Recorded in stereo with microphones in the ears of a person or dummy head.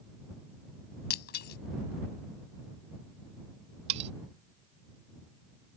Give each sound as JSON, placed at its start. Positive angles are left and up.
{"t": 1.1, "sound": "breaking glass", "side_deg": 65}
{"t": 3.9, "sound": "cutlery clinking", "side_deg": -35}